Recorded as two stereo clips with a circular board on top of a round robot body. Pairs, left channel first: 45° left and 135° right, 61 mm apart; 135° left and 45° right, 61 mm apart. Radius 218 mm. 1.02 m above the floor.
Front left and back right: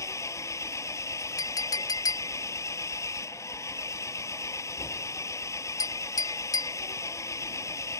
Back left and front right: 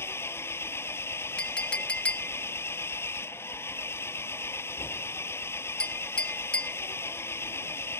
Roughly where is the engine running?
Left.